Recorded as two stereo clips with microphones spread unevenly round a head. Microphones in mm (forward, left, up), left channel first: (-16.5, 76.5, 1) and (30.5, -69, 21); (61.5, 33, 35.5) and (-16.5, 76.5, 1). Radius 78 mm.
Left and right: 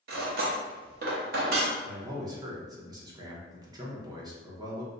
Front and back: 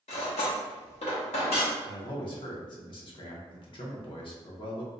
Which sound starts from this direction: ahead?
A man speaking, at 1.8 s.